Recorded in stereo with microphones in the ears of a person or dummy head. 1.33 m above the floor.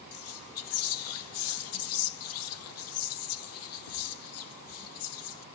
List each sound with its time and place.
0.1 s whispering: 75° left (ahead or behind), 0.5 m